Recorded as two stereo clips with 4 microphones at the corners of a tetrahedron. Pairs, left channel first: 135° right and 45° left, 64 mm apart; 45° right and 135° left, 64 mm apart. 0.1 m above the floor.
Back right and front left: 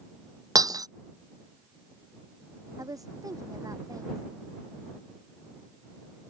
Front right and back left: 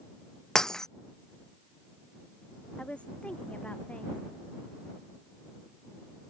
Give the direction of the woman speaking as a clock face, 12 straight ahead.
11 o'clock.